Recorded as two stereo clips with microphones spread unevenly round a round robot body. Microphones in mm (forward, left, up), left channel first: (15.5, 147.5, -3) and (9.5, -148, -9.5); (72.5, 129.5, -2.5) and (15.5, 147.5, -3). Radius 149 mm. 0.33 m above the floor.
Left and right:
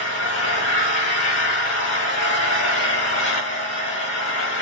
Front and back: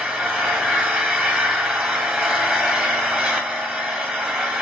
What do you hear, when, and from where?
0.0 s an engine running: 105° left, 1.4 m